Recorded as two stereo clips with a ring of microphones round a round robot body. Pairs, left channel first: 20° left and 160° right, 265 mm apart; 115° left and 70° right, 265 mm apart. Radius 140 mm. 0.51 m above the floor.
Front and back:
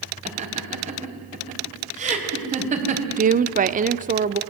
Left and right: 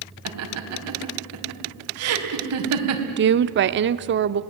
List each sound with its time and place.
0.2 s laughter: 95° right, 4.5 m
3.2 s a woman speaking: 105° right, 1.0 m